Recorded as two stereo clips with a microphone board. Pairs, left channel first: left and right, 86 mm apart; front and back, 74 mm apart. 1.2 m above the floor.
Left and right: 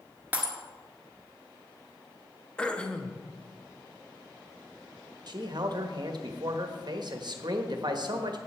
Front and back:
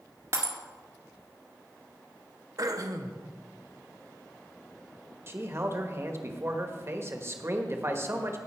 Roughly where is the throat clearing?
Behind.